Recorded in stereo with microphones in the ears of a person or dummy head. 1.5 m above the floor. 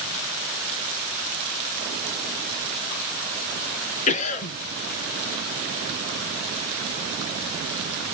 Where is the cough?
40° left (ahead or behind), 1.9 m.